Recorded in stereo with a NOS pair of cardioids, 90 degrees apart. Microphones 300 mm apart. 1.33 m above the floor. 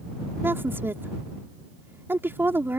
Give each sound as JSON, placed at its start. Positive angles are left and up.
{"t": 0.4, "sound": "a woman speaking", "azimuth_deg": -5}